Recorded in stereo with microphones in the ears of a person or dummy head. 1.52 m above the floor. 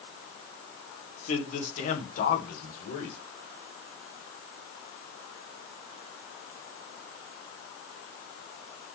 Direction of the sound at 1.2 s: 50° left (ahead or behind).